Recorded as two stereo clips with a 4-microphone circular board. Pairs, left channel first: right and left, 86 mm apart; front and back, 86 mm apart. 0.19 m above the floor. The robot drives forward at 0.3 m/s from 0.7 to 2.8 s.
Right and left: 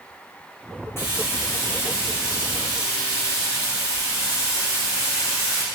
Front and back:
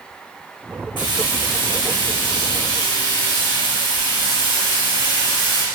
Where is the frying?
30° right, 5.5 m; by 5.7 s 35° right, 5 m.